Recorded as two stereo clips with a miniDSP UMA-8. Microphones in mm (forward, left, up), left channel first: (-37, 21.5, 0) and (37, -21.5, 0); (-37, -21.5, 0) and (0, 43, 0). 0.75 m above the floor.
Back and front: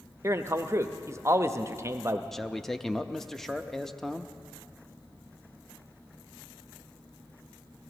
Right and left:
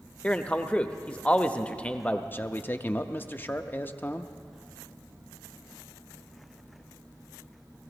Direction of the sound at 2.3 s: 125° right.